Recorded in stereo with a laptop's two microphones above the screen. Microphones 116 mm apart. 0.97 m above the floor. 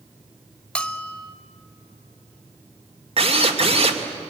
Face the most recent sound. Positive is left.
turn(degrees=-60)  # may be behind; listen again after turning